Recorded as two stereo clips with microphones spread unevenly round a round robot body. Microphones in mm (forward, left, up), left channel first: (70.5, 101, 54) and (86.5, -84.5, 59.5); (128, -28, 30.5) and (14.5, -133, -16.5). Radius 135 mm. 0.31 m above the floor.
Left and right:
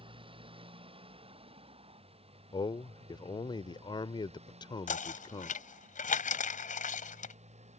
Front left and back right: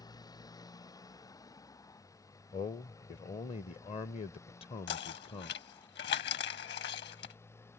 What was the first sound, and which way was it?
A motorcycle, 25° right.